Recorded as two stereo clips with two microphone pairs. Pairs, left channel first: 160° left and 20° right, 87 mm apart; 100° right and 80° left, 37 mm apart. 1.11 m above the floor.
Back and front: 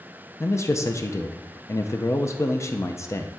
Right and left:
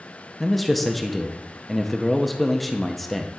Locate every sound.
0.4 s a man speaking: 175° left, 0.5 m